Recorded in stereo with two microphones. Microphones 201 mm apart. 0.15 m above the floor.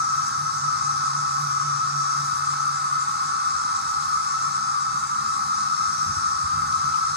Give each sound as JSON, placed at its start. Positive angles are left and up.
{"t": 0.0, "sound": "an insect", "side_deg": -55, "distance_m": 0.7}